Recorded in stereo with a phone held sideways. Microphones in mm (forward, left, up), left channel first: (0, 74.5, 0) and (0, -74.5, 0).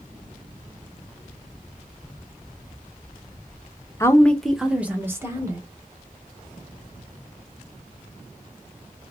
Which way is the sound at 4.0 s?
20° left (ahead or behind).